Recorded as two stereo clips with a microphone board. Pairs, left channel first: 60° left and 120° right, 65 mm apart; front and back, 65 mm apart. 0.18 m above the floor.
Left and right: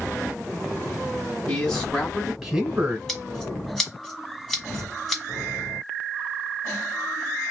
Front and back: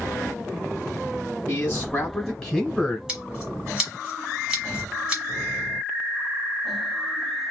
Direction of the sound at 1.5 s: 30° left.